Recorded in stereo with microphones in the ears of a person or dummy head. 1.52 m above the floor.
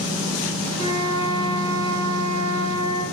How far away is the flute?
About 2 m.